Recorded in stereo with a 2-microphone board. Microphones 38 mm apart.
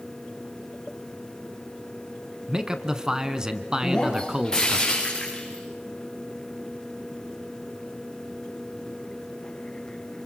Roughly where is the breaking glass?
Centre.